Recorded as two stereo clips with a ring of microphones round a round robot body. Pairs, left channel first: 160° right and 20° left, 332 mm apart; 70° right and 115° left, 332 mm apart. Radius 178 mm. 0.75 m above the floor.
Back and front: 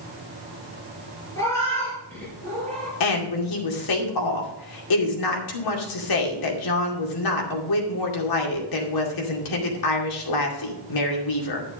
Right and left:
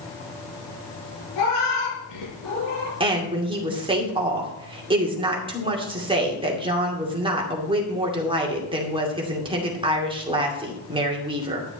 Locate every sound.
1.4 s a cat meowing: 75° right, 5.5 m; by 2.9 s 70° right, 6.5 m
3.0 s a woman speaking: 170° right, 2.5 m